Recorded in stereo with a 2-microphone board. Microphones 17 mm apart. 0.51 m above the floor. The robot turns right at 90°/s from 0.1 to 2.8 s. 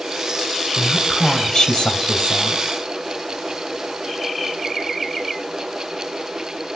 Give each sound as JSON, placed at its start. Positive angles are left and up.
{"t": 0.8, "sound": "a woman speaking", "azimuth_deg": -30, "distance_m": 3.0}